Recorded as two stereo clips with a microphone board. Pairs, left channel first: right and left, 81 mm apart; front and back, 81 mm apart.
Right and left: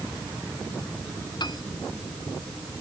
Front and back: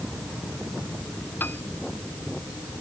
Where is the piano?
65° right.